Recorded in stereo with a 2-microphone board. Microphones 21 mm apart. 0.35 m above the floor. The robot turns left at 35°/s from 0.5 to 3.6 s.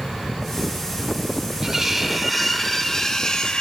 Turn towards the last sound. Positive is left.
turn(degrees=135)